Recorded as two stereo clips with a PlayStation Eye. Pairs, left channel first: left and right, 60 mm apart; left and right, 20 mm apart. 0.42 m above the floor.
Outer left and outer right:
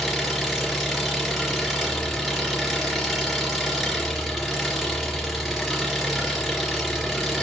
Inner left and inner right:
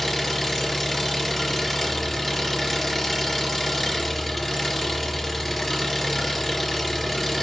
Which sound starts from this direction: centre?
An engine running, at 0.0 s.